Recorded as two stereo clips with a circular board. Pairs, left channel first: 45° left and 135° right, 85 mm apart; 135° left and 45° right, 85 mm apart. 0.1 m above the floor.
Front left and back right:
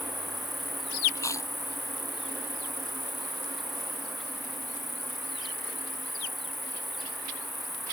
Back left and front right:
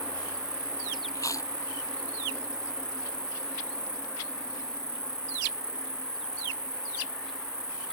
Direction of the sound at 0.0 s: 45° right.